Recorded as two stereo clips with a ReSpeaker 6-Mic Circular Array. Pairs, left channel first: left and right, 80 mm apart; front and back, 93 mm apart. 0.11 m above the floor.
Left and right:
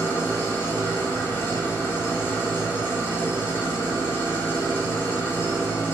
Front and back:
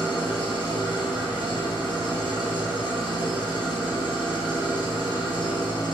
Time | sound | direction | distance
0.0 | an engine running | 25° left | 1.1 m